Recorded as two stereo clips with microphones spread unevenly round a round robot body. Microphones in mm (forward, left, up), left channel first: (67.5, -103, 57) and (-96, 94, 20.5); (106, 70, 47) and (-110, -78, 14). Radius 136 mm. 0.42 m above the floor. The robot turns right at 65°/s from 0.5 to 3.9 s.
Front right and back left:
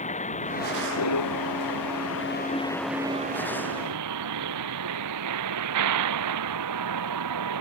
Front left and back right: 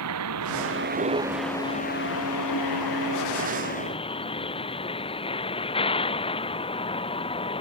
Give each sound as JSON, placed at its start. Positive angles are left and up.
{"t": 0.0, "sound": "a vehicle", "azimuth_deg": -115}